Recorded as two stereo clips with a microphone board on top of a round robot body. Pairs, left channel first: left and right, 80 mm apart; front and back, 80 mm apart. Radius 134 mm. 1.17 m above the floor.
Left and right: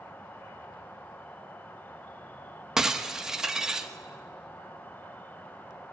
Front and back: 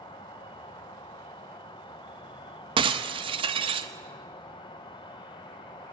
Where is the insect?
20° left, 0.8 m.